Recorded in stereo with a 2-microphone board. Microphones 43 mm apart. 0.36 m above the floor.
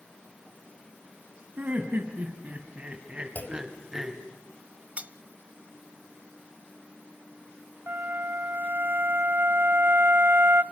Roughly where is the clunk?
Left.